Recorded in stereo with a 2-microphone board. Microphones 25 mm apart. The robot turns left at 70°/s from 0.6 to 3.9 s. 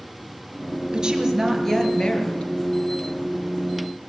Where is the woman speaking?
145° right, 4 m; by 2.5 s 110° left, 4 m.